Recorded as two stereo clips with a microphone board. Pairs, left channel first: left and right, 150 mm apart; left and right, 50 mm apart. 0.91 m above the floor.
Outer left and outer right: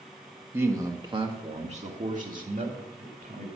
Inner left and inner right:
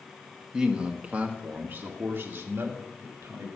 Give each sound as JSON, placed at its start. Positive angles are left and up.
{"t": 0.5, "sound": "a man speaking", "side_deg": -15, "distance_m": 1.6}